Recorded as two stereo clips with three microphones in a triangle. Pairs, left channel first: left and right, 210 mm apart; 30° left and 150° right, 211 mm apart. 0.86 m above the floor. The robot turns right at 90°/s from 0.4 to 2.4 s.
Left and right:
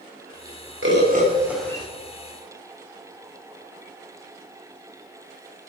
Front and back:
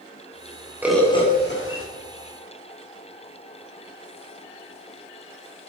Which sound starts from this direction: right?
A bird, at 0.8 s.